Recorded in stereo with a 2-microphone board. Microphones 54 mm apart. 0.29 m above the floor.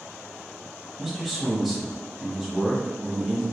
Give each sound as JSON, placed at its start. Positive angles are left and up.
{"t": 1.0, "sound": "a man speaking", "side_deg": -5, "distance_m": 1.2}